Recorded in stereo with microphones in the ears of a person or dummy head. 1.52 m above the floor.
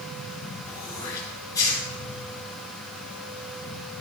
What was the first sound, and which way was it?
Throat clearing, 20° left (ahead or behind).